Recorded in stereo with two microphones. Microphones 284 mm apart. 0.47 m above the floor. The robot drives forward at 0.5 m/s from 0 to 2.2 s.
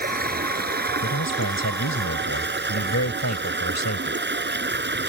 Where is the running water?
30° right (ahead or behind); by 5.1 s 40° right (ahead or behind).